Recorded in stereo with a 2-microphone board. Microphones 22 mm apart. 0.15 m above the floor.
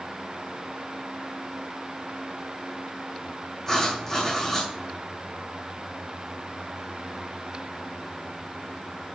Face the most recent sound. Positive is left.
turn(degrees=25)  # may be behind; listen again after turning